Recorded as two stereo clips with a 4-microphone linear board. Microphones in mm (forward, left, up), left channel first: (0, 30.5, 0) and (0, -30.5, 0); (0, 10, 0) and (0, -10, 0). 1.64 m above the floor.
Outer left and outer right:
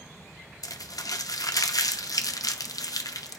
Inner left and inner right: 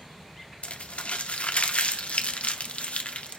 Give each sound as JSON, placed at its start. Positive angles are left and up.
{"t": 0.6, "sound": "crumpling", "side_deg": 90, "distance_m": 0.5}